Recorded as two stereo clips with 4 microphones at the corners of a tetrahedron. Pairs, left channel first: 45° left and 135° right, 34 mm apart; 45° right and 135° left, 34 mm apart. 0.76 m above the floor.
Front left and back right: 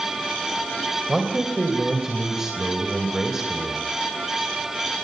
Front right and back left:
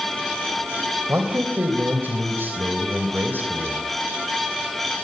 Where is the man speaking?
145° left, 3 m.